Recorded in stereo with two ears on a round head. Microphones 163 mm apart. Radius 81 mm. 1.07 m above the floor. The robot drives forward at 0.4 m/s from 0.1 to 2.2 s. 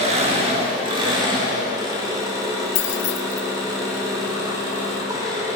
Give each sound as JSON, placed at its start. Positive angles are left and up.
{"t": 0.0, "sound": "an engine running", "side_deg": -35, "distance_m": 1.1}
{"t": 2.8, "sound": "keys jangling", "side_deg": 75, "distance_m": 0.6}